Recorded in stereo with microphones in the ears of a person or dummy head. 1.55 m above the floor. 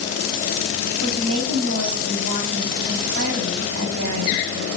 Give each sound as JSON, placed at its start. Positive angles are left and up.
{"t": 1.0, "sound": "a woman speaking", "side_deg": -80, "distance_m": 3.5}